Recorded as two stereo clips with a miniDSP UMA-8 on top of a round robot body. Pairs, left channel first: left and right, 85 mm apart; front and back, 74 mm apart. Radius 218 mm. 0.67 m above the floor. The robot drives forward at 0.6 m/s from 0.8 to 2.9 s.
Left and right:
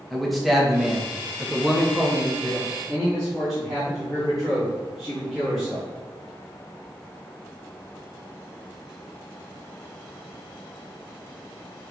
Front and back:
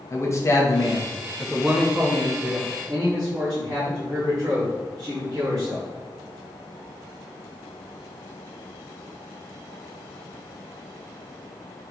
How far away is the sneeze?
I don't hear a sneeze.